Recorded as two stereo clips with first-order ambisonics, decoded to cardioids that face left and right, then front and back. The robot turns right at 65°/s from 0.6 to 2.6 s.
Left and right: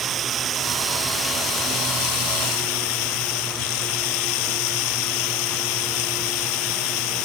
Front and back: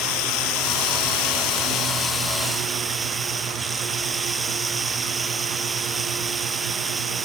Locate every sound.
0.0 s running water: 30° right; by 7.3 s 100° left